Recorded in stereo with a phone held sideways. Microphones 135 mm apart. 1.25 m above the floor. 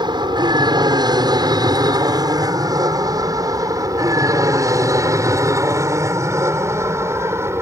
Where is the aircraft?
35° right (ahead or behind); by 7.6 s 20° right (ahead or behind).